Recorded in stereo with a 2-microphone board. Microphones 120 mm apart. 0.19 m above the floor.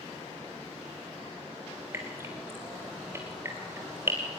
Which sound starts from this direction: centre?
Dripping, at 1.9 s.